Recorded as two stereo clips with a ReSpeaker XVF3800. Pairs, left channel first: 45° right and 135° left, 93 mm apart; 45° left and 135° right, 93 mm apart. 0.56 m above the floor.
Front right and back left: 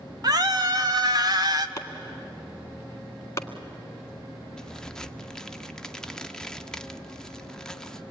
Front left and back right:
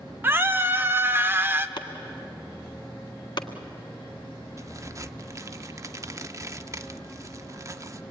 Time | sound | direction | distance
0.2 | a scream | 165° left | 1.2 m
1.8 | chopping | 10° left | 1.6 m
4.6 | a crack | 125° right | 0.7 m